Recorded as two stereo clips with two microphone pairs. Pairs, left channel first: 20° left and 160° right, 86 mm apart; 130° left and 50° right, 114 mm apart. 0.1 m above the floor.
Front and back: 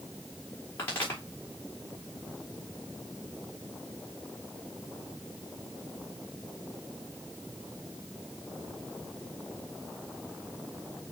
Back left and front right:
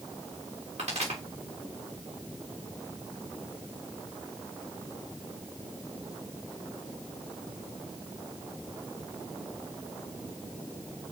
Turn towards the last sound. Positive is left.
turn(degrees=-35)